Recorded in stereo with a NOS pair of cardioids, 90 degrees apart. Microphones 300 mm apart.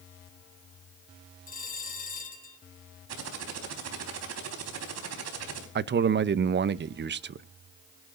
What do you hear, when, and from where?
1.5 s a bell: 30° left, 3 m
3.1 s typing on a keyboard: 60° right, 4 m
5.8 s a man speaking: 35° right, 0.8 m